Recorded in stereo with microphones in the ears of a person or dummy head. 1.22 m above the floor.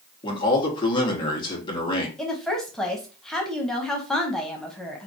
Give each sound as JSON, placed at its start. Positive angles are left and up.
{"t": 0.2, "sound": "a man speaking", "side_deg": 25, "distance_m": 1.1}
{"t": 2.2, "sound": "a woman speaking", "side_deg": 5, "distance_m": 0.7}